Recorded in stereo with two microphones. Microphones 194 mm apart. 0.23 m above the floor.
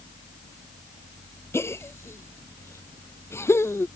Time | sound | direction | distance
1.5 | a gasp | 15° left (ahead or behind) | ?